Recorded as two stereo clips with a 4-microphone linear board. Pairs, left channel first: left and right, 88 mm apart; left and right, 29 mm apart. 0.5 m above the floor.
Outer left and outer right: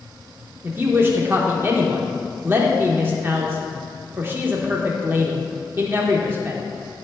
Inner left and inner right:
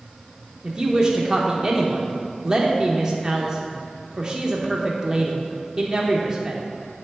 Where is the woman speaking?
30° right (ahead or behind), 0.8 m.